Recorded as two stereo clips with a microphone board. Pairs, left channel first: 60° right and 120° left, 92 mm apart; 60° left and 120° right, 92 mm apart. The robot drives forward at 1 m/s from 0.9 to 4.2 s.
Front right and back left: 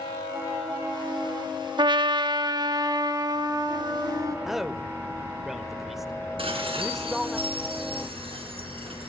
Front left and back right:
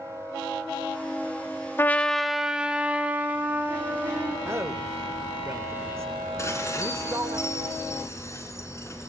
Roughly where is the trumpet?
Behind left.